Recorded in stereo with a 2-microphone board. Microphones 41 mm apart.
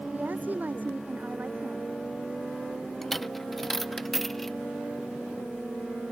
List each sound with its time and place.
0.1 s a woman speaking: 50° right (ahead or behind); by 1.9 s 45° right (ahead or behind)
3.0 s a dropped coin: 5° left (ahead or behind)